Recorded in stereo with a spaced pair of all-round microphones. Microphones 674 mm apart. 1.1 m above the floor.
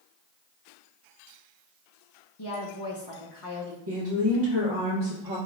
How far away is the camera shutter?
No camera shutter in this recording.